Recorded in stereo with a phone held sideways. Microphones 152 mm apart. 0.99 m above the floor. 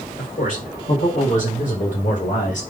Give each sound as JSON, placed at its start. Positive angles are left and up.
{"t": 0.2, "sound": "a man speaking", "side_deg": 60, "distance_m": 3.5}